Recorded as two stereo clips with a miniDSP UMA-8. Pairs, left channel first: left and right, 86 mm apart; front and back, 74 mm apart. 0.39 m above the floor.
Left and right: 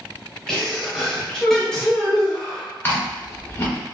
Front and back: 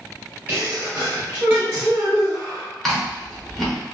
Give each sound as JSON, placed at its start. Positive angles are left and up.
{"t": 0.5, "sound": "a sneeze", "azimuth_deg": 165, "distance_m": 1.2}
{"t": 2.8, "sound": "chewing", "azimuth_deg": 85, "distance_m": 1.3}